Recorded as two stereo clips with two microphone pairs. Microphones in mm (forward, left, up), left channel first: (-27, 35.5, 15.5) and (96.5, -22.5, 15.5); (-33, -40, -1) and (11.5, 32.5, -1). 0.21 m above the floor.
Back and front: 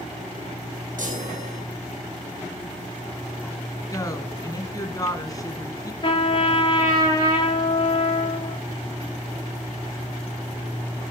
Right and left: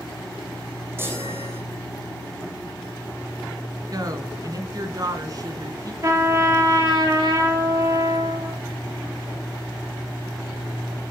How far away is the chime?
About 4.5 m.